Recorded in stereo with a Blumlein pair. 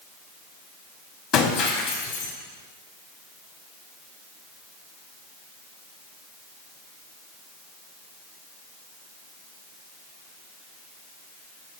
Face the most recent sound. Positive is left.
turn(degrees=35)